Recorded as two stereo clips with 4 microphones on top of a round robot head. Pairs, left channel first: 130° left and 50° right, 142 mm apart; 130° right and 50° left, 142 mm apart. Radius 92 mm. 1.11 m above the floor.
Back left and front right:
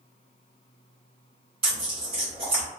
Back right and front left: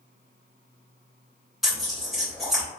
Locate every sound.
1.6 s tearing paper: 40° right, 0.9 m